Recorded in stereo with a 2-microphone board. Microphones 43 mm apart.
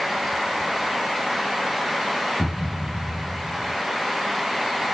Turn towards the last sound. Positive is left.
turn(degrees=-20)  # may be behind; listen again after turning